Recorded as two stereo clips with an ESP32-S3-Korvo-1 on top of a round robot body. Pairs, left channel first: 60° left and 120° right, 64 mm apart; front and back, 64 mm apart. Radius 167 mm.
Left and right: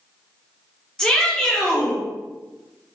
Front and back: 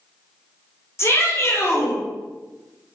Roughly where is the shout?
Ahead.